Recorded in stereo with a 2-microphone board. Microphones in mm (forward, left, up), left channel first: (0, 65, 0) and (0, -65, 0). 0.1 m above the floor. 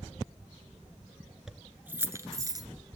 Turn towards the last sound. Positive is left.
turn(degrees=-30)  # may be behind; listen again after turning